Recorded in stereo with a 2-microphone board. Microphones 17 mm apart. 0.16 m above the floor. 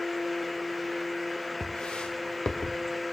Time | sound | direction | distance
1.6 | footsteps | 85° left | 1.9 m